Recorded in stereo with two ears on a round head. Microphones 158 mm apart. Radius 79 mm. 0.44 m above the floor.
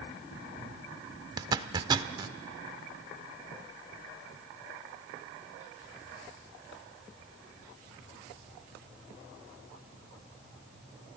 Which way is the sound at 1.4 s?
20° right (ahead or behind).